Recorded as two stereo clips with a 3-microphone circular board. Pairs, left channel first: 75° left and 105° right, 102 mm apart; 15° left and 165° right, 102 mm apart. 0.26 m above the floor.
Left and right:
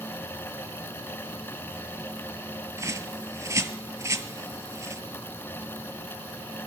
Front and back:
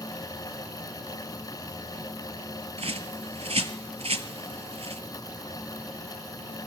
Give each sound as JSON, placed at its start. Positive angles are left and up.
{"t": 2.8, "sound": "a bird", "azimuth_deg": -165, "distance_m": 0.7}